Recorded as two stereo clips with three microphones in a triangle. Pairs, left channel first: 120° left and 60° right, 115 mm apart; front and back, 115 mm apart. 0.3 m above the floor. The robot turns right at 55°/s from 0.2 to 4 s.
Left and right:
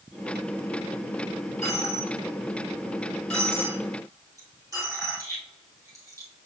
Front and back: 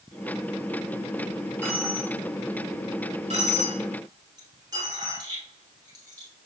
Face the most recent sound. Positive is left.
turn(degrees=-120)